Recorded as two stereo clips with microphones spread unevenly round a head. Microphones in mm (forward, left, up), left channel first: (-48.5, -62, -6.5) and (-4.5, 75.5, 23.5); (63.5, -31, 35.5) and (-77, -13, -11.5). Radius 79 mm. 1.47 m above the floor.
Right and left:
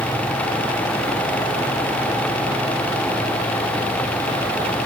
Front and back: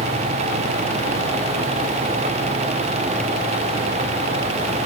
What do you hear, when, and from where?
Only background noise.